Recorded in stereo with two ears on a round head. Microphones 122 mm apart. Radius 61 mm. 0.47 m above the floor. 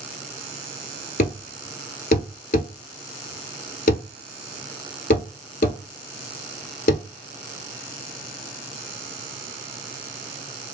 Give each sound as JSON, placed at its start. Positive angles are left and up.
{"t": 1.2, "sound": "a thud", "side_deg": 65, "distance_m": 0.8}